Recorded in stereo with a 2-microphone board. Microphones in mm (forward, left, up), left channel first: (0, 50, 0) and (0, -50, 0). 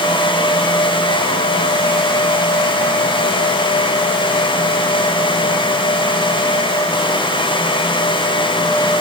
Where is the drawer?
I don't hear a drawer.